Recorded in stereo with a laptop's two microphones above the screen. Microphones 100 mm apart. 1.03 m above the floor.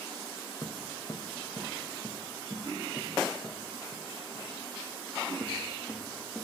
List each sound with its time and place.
0.6 s footsteps: 40° left (ahead or behind), 2.5 m; by 6.5 s 15° left (ahead or behind), 8 m